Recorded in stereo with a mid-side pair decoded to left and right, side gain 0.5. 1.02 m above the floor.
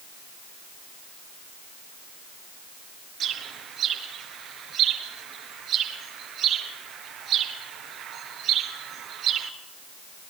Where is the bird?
60° right, 3 m.